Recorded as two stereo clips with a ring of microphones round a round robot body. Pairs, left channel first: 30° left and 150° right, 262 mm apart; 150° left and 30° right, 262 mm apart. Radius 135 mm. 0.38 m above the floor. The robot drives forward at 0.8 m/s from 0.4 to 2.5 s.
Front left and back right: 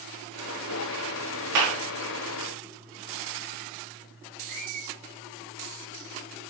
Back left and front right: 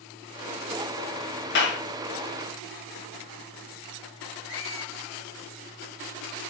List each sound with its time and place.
1.6 s a clap: 160° right, 5 m
4.5 s a squeak: 135° right, 4.5 m